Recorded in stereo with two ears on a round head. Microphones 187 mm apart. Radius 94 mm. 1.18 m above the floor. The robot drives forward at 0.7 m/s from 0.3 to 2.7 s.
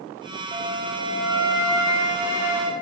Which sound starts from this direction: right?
A flute, at 0.5 s.